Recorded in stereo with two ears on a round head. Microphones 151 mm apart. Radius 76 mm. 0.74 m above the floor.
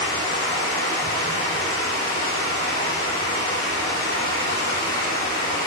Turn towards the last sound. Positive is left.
turn(degrees=50)  # may be behind; listen again after turning